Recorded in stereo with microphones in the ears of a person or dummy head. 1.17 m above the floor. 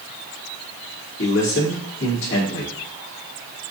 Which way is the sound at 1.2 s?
75° left (ahead or behind).